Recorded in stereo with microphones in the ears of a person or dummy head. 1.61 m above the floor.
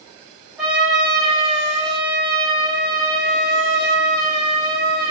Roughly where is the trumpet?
Centre.